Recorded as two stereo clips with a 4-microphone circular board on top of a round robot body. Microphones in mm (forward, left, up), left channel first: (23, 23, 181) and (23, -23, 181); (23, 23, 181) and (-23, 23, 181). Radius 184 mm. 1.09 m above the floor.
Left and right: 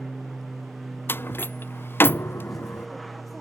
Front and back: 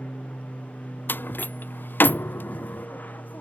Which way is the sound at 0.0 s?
Straight ahead.